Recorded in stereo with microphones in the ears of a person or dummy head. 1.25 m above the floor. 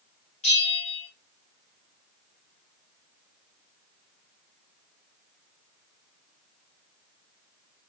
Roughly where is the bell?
Left.